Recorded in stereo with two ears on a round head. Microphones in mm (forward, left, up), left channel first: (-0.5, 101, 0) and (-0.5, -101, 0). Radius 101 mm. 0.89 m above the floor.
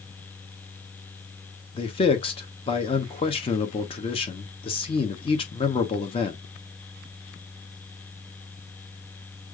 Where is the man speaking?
25° left (ahead or behind), 0.7 m.